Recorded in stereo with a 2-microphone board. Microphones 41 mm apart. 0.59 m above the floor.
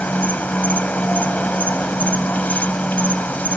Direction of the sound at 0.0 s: 40° left (ahead or behind).